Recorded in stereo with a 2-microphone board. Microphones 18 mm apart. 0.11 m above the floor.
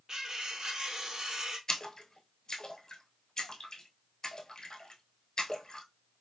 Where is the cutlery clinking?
30° right (ahead or behind), 1.5 m.